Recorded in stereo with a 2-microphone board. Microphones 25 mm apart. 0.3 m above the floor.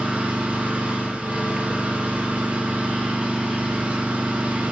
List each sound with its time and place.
0.0 s an engine running: 75° right (ahead or behind), 9.5 m